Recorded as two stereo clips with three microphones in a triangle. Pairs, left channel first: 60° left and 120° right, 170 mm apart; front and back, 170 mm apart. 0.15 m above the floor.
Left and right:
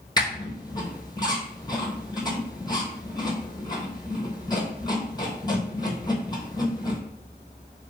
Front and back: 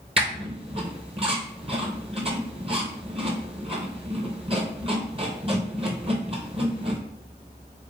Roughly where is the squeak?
Behind left.